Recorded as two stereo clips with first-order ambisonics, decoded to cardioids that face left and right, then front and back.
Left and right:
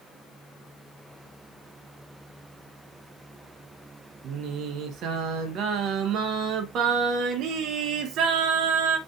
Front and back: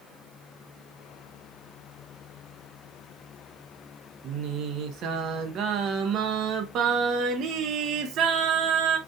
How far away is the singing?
About 0.7 m.